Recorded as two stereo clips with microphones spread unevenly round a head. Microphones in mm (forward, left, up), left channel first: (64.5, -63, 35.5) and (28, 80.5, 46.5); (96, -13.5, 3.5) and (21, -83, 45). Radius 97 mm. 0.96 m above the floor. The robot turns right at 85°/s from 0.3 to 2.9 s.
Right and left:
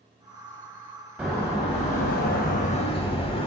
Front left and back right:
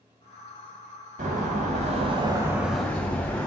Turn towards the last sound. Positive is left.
turn(degrees=-25)